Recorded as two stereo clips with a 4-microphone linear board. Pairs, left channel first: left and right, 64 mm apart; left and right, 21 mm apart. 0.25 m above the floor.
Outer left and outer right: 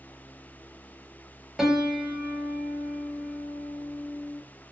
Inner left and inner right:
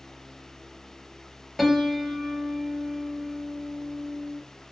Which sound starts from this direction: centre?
A piano, at 1.6 s.